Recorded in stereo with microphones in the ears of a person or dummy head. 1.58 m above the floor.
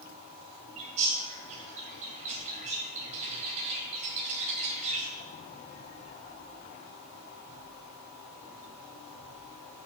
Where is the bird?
45° right (ahead or behind), 3.5 m.